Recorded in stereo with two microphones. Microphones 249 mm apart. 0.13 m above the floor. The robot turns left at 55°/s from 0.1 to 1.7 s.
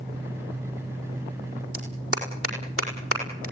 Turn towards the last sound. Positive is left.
turn(degrees=-65)  # may be behind; listen again after turning